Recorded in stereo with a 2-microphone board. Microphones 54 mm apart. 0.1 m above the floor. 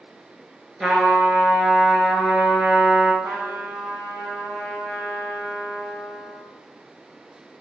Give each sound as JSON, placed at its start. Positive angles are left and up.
{"t": 0.8, "sound": "a trumpet", "side_deg": -10, "distance_m": 1.2}
{"t": 3.2, "sound": "a trumpet", "side_deg": -25, "distance_m": 1.6}